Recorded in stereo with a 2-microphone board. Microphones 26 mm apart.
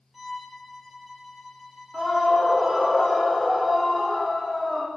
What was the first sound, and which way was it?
A violin, 10° right (ahead or behind).